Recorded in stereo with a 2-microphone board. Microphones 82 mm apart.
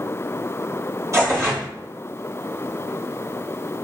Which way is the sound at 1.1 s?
40° right (ahead or behind).